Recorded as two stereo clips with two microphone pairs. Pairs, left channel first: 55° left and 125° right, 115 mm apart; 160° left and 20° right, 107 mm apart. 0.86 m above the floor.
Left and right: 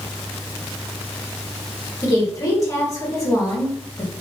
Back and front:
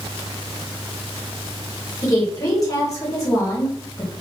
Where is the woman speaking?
110° left, 1.3 m.